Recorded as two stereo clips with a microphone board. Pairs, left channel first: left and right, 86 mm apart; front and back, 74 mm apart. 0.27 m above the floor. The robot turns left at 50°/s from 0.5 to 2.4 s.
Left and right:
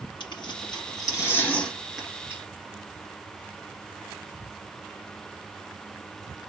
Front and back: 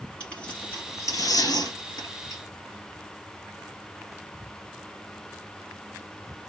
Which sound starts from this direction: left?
Tearing paper, at 0.2 s.